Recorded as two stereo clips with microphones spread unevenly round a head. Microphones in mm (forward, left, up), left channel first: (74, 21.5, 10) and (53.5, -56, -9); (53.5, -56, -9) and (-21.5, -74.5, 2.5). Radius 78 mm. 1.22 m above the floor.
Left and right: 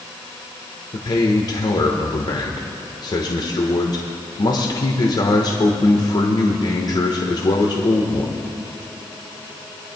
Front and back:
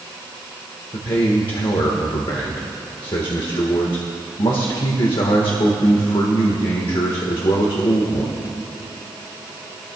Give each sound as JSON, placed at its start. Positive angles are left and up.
{"t": 0.9, "sound": "a man speaking", "azimuth_deg": 40, "distance_m": 1.3}